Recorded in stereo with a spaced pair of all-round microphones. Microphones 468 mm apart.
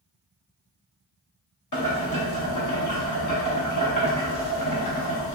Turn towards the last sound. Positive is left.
turn(degrees=40)  # may be behind; listen again after turning